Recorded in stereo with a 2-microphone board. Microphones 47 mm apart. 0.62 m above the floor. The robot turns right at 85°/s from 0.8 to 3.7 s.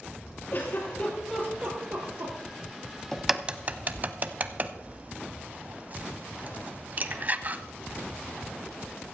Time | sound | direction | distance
0.5 | a giggle | 50° left (ahead or behind) | 4.5 m
3.1 | a crack | 10° left (ahead or behind) | 0.7 m